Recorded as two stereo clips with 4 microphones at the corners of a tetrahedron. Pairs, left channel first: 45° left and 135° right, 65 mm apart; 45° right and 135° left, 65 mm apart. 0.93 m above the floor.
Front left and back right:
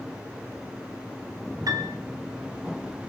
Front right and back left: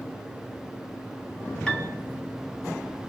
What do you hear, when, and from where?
1.7 s a piano: 120° right, 3 m